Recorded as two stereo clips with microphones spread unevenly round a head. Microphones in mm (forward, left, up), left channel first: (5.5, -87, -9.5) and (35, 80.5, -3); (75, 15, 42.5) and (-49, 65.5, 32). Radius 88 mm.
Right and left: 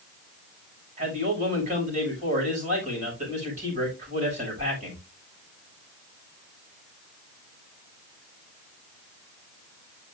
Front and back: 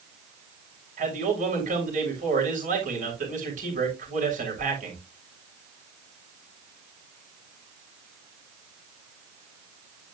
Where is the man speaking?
135° left, 6.5 m.